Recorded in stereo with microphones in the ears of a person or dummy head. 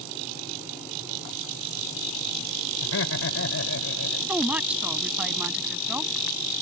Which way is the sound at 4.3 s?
5° right (ahead or behind).